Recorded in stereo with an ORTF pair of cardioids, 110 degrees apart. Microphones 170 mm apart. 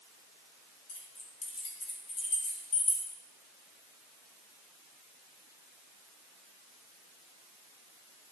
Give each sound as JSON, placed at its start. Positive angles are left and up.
{"t": 0.9, "sound": "keys jangling", "azimuth_deg": 45, "distance_m": 4.0}